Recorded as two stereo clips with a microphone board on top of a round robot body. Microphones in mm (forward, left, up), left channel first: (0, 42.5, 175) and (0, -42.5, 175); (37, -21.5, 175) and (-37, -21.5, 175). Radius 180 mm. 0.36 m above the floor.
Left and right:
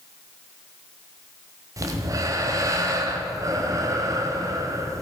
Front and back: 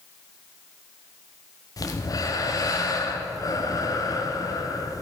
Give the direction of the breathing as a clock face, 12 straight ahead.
1 o'clock.